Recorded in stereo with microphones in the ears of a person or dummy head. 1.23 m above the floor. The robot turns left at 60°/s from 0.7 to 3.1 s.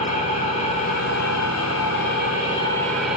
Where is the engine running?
135° left, 3.5 m; by 3.2 s 10° right, 3.5 m.